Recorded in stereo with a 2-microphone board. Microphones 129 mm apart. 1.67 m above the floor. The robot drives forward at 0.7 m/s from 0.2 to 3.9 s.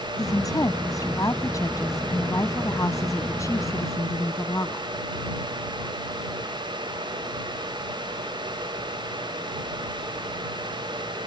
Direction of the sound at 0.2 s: 25° left (ahead or behind).